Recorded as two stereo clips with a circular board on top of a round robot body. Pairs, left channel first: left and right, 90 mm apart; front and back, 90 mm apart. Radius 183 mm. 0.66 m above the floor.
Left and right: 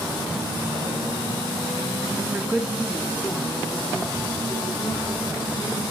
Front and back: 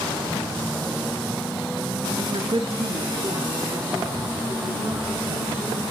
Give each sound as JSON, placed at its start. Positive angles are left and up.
{"t": 2.2, "sound": "a woman speaking", "azimuth_deg": -145, "distance_m": 1.3}